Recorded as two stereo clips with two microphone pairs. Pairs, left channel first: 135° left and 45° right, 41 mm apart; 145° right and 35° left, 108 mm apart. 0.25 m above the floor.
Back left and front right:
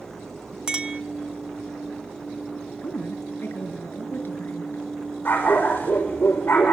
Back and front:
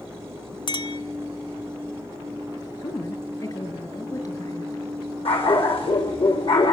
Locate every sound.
0.7 s a clink: 110° right, 1.2 m
2.8 s a woman speaking: 165° left, 4.5 m
5.2 s a dog barking: 175° right, 6 m